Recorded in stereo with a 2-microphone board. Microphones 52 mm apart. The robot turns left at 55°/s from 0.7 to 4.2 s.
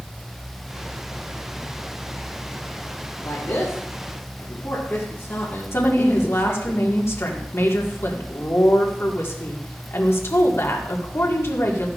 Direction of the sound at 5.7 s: 55° left (ahead or behind).